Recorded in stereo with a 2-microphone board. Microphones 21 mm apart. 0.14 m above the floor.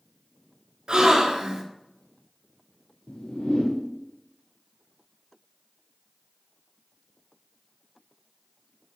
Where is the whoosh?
80° left, 0.9 m.